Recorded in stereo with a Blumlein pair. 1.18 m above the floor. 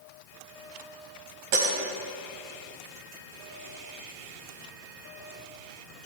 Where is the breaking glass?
45° right, 3.5 m.